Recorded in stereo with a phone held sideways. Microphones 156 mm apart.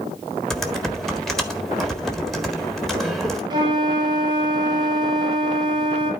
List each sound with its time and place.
0.5 s typing on a keyboard: centre (ahead or behind), 1.6 m
3.5 s a flute: 25° right (ahead or behind), 2.5 m